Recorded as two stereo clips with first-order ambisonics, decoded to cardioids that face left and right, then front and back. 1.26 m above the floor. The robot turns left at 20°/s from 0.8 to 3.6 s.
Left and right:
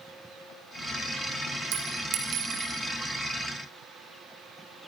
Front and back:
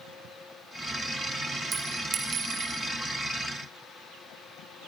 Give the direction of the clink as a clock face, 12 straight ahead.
4 o'clock.